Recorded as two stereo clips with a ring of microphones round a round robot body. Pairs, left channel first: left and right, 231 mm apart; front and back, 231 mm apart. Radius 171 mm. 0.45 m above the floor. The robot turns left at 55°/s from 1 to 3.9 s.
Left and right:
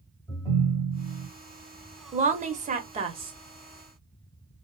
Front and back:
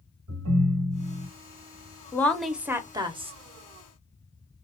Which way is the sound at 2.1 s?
70° right.